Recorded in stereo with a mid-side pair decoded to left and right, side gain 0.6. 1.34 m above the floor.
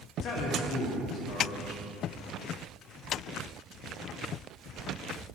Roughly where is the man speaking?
Ahead left.